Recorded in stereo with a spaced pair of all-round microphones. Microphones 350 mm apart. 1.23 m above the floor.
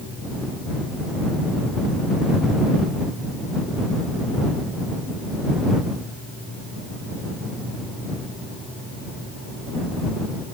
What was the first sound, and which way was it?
Only background noise.